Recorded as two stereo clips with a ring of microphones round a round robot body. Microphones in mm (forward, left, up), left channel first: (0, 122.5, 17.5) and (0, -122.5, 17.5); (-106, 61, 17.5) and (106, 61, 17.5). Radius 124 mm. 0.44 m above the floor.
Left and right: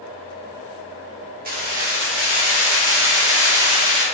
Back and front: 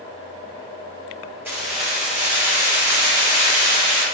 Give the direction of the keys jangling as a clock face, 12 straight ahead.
2 o'clock.